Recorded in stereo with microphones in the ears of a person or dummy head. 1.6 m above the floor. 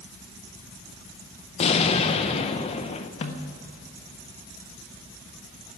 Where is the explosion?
35° left (ahead or behind), 1.1 m.